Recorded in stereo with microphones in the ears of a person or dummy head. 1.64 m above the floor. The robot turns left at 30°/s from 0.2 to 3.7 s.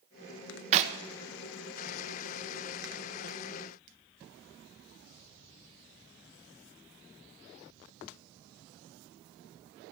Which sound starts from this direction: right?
A clap, at 0.7 s.